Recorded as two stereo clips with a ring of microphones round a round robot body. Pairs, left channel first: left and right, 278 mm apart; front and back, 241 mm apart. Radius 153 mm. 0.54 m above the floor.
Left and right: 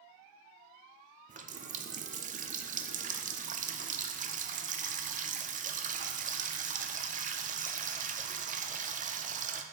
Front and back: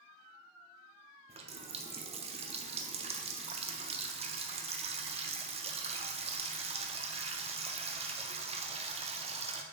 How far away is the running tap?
About 0.6 m.